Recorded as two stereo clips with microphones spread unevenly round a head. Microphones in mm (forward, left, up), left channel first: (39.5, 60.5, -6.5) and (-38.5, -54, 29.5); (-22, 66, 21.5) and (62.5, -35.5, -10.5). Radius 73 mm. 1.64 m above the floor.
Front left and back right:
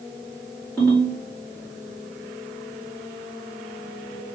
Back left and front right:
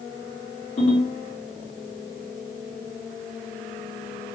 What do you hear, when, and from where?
0.8 s a ringtone: 145° left, 2.0 m